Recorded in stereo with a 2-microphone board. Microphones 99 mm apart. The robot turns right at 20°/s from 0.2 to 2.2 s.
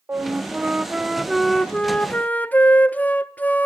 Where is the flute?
25° right, 0.8 m; by 3.6 s 15° left, 0.8 m.